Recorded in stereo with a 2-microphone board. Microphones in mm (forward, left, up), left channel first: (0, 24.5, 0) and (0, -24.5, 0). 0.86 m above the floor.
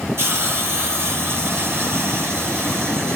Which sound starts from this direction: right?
A hiss, at 0.2 s.